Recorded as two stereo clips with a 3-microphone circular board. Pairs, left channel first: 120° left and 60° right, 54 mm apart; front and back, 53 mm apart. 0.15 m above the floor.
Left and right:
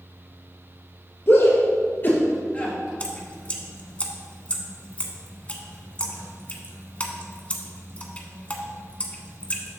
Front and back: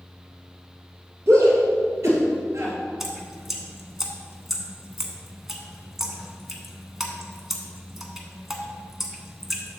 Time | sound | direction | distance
1.3 | a shout | 160° left | 2.5 m
3.0 | dripping | 105° left | 0.9 m